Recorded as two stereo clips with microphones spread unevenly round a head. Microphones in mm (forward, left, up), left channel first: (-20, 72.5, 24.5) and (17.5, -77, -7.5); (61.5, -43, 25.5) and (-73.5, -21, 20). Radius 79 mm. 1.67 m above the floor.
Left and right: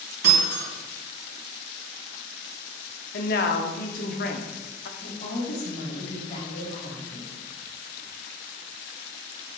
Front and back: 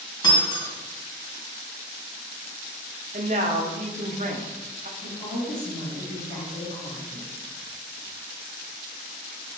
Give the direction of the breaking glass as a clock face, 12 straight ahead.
2 o'clock.